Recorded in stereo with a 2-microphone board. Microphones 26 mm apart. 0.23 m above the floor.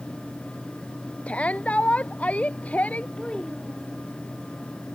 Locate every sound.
1.3 s a shout: 60° left (ahead or behind); by 3.1 s 70° left (ahead or behind)
3.2 s a child speaking: 35° left (ahead or behind)